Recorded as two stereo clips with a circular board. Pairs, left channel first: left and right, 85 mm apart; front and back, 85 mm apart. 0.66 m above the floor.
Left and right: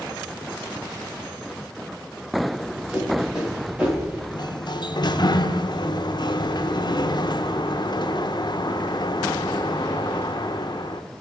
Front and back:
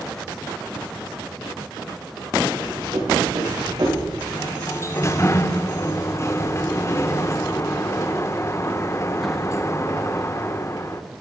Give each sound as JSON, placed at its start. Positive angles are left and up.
{"t": 2.5, "sound": "running footsteps", "azimuth_deg": -175, "distance_m": 5.5}
{"t": 4.3, "sound": "a sliding door", "azimuth_deg": 55, "distance_m": 0.6}